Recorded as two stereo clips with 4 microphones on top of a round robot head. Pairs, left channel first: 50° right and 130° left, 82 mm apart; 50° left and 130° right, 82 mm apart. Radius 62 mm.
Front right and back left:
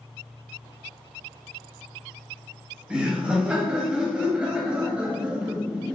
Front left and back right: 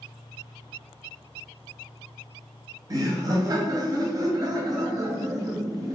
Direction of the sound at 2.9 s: 155° right.